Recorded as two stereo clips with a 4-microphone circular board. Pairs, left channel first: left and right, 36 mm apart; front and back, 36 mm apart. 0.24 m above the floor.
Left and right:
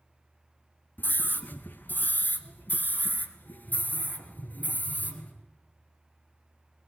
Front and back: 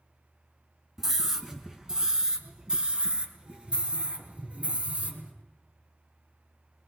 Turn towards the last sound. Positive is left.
turn(degrees=125)